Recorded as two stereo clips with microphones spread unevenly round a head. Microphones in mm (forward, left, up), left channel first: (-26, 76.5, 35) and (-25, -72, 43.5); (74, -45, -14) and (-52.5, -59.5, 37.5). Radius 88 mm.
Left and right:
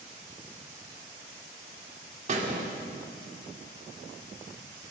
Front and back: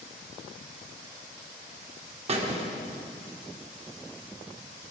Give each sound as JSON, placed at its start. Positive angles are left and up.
{"t": 2.3, "sound": "a squeak", "azimuth_deg": -135, "distance_m": 2.0}